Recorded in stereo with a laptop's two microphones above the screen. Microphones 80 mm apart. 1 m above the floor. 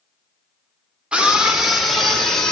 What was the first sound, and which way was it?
A scream, 10° right (ahead or behind).